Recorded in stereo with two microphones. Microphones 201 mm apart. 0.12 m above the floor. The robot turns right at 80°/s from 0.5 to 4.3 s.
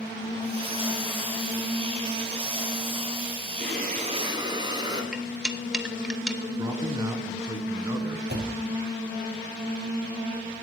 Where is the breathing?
80° right, 2.5 m; by 5.0 s 25° right, 2.5 m.